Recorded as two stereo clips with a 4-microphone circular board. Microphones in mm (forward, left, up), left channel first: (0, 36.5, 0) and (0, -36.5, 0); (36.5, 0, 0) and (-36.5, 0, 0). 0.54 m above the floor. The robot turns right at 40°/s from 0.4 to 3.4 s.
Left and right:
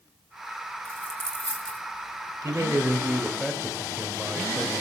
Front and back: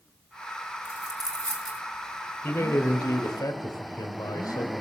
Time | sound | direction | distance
0.8 | a dropped coin | 135° left | 3 m
2.4 | a man speaking | 50° right | 2.0 m